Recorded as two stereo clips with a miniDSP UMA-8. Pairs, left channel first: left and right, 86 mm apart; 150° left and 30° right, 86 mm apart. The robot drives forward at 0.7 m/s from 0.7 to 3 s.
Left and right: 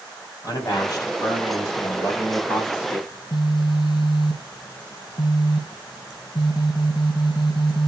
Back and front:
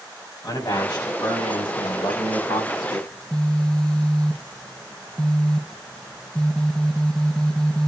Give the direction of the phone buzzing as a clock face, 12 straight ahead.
10 o'clock.